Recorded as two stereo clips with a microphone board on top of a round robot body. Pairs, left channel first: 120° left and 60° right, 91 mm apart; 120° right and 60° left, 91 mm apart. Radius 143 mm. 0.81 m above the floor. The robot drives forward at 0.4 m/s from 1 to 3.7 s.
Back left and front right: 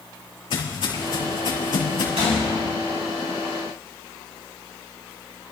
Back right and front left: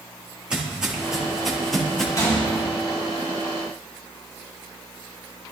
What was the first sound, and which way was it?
Footsteps, 140° left.